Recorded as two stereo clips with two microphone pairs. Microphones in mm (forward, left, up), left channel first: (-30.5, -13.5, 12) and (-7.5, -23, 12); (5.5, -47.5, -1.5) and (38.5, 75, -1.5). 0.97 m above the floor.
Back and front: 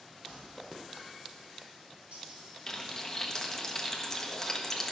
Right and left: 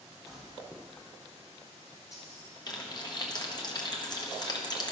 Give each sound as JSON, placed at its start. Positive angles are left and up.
{"t": 0.3, "sound": "keys jangling", "azimuth_deg": -45, "distance_m": 4.0}
{"t": 2.7, "sound": "frying", "azimuth_deg": -145, "distance_m": 1.0}